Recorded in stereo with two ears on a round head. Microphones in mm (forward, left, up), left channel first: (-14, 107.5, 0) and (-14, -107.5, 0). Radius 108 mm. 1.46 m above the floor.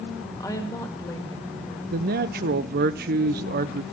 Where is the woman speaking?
15° left (ahead or behind), 1.8 m.